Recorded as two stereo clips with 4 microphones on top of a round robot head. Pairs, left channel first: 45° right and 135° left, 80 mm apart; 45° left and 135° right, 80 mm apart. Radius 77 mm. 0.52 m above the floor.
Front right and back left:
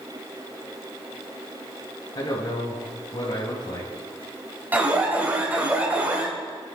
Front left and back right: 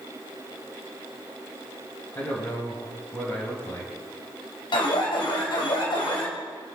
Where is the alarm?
65° left, 3.5 m.